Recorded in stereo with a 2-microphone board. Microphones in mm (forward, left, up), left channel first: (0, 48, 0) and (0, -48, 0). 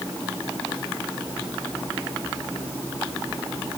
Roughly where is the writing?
No writing in this recording.